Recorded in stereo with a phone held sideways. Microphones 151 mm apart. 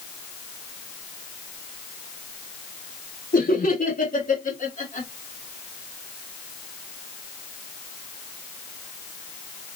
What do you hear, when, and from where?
3.3 s laughter: 85° left, 2.5 m; by 5.1 s 50° left (ahead or behind), 2.5 m